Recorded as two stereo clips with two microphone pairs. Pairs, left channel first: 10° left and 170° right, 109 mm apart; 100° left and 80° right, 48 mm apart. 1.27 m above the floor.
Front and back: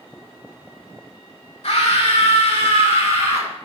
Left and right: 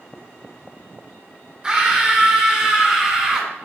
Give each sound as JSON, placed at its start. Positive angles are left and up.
{"t": 1.6, "sound": "a scream", "azimuth_deg": -10, "distance_m": 3.5}